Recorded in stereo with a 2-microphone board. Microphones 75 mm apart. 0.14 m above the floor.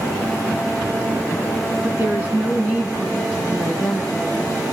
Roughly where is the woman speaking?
Right.